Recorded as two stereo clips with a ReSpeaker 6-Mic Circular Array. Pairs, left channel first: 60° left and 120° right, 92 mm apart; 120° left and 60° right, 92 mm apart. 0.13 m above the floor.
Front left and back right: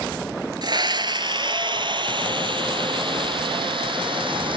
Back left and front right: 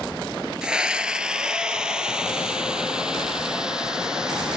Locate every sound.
0.6 s a scream: 140° right, 1.8 m; by 4.6 s 145° right, 4.5 m